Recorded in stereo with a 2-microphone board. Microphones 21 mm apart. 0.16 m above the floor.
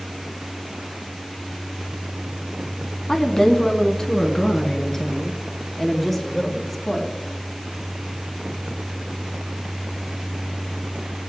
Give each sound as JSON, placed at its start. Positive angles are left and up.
{"t": 3.1, "sound": "a woman speaking", "side_deg": 25, "distance_m": 1.1}